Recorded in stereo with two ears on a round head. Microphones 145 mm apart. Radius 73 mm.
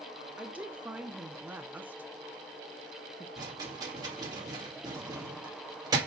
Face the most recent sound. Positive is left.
turn(degrees=-25)  # may be behind; listen again after turning